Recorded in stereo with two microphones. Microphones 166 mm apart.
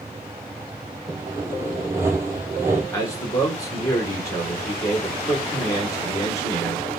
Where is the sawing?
15° right (ahead or behind), 0.7 m.